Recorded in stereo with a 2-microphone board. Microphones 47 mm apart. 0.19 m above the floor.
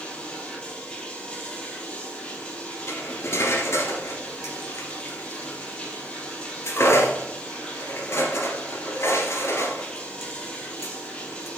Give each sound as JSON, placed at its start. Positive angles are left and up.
{"t": 0.0, "sound": "running water", "side_deg": 20, "distance_m": 3.0}
{"t": 2.9, "sound": "cutlery clinking", "side_deg": 65, "distance_m": 1.8}